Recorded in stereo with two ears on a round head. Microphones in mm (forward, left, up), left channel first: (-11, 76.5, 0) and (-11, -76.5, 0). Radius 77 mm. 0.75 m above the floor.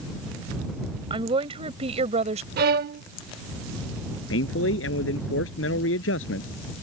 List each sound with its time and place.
1.1 s a woman speaking: 30° right (ahead or behind); by 2.5 s 40° right (ahead or behind)
2.6 s a violin: 55° right (ahead or behind)
4.3 s a man speaking: 75° left (ahead or behind)